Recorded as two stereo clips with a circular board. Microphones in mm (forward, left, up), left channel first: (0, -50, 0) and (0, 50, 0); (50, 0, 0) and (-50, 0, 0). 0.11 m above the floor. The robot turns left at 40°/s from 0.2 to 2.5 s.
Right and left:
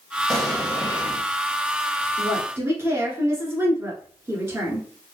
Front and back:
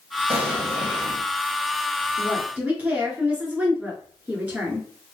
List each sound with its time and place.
0.3 s an explosion: 175° right, 1.4 m; by 1.2 s 150° left, 1.4 m
2.2 s a woman speaking: 135° left, 1.3 m; by 4.9 s 120° left, 1.3 m